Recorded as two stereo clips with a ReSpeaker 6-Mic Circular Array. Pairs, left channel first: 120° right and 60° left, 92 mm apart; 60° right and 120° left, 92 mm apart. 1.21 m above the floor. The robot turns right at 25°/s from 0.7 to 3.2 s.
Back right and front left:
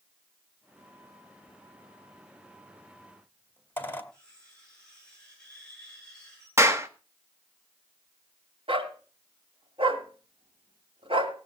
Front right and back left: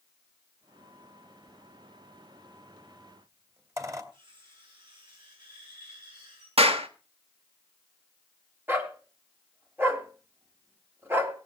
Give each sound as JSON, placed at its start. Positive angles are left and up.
{"t": 1.5, "sound": "a squeak", "azimuth_deg": 130, "distance_m": 1.7}
{"t": 4.1, "sound": "cutlery clinking", "azimuth_deg": 160, "distance_m": 9.5}
{"t": 6.6, "sound": "a clap", "azimuth_deg": 120, "distance_m": 1.4}
{"t": 8.7, "sound": "a dog barking", "azimuth_deg": 55, "distance_m": 2.0}